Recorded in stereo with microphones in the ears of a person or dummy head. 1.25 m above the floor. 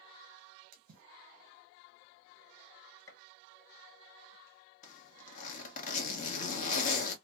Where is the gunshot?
15° left (ahead or behind), 0.9 m.